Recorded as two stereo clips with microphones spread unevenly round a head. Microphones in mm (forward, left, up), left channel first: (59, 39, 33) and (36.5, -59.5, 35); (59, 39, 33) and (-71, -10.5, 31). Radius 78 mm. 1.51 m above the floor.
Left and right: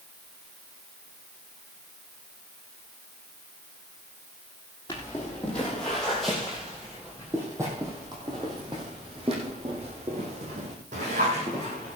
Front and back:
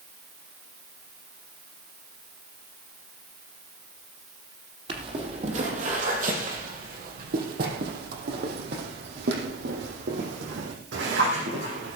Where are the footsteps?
150° left, 3 m; by 12.0 s 145° right, 5 m.